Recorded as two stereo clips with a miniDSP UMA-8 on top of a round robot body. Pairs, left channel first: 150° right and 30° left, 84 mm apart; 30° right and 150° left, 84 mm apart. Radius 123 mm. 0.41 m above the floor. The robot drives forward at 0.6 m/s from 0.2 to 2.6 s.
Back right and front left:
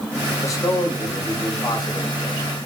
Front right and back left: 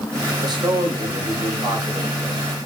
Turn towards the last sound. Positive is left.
turn(degrees=170)